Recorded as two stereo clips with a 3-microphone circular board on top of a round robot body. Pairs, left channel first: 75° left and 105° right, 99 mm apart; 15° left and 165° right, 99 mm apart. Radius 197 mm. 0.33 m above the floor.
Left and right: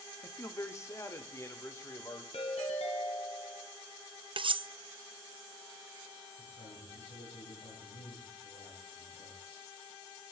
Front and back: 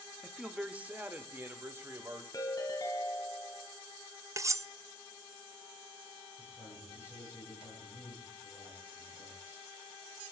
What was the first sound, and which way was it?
A man speaking, 110° left.